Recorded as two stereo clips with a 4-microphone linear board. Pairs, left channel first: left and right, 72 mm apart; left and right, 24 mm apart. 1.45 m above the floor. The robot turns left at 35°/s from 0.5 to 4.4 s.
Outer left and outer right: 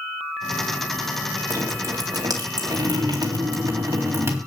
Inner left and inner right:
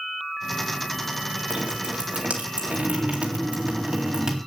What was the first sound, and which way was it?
Dripping, 45° right.